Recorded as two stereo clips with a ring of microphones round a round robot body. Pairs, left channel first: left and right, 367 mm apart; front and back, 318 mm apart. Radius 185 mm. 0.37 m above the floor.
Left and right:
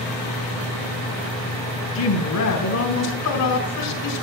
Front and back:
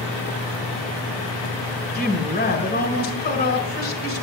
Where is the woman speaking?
55° left, 2.0 m.